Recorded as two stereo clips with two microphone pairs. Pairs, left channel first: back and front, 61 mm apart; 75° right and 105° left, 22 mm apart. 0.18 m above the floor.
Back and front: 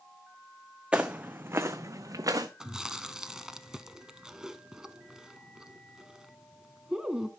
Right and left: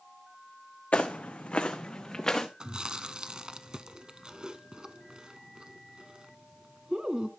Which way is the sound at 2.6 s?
75° left.